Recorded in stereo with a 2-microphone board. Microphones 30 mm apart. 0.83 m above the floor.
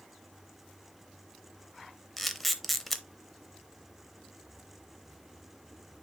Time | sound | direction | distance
2.2 | a camera shutter | 10° left (ahead or behind) | 0.7 m